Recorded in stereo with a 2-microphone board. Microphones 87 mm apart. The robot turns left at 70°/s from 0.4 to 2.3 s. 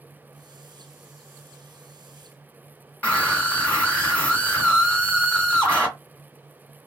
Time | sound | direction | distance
3.0 | a scream | 15° left (ahead or behind) | 1.7 m